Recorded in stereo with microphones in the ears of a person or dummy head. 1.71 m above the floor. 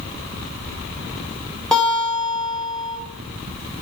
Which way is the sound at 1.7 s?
5° left (ahead or behind).